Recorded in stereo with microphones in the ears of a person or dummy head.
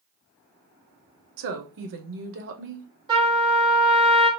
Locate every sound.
1.4 s a woman speaking: 65° right (ahead or behind), 0.8 m
3.1 s a trumpet: 25° right (ahead or behind), 1.4 m